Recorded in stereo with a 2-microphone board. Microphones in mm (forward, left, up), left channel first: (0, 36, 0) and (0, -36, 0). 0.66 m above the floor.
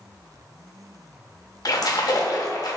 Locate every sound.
1.6 s a splash: 60° left (ahead or behind), 0.5 m